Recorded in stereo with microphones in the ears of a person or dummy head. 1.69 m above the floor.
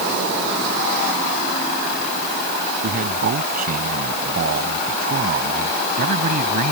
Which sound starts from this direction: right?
A man speaking, at 2.8 s.